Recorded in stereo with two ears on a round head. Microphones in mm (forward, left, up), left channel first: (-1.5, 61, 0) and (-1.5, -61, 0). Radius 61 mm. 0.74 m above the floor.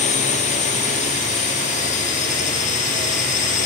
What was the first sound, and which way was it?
A drone, 55° left (ahead or behind).